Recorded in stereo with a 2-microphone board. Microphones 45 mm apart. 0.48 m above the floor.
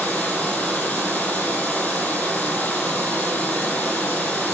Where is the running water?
30° left (ahead or behind), 6 m.